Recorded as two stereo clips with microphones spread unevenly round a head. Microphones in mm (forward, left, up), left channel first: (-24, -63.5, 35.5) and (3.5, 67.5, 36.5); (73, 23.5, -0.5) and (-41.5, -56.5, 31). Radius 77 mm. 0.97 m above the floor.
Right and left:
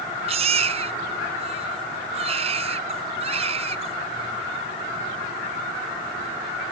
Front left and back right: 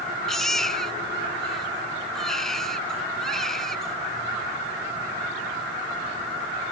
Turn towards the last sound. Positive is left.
turn(degrees=125)